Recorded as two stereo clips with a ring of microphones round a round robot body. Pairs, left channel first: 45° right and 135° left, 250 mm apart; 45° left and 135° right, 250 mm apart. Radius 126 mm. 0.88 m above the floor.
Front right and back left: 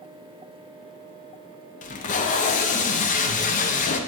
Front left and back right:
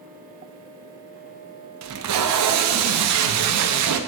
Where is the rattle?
I don't hear a rattle.